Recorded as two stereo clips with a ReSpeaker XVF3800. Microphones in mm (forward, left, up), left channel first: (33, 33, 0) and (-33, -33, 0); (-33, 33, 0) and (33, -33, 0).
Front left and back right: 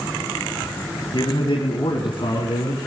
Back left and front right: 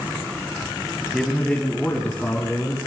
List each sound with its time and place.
1.1 s a man speaking: 50° left, 2.5 m; by 2.8 s 60° left, 4.5 m